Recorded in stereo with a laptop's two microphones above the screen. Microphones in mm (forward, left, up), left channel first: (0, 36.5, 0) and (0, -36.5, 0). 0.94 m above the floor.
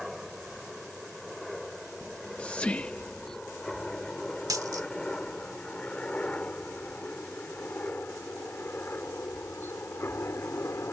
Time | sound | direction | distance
0.0 | a helicopter | 5° right (ahead or behind) | ?
2.0 | whispering | 20° left (ahead or behind) | ?
4.5 | a dropped coin | 55° right (ahead or behind) | ?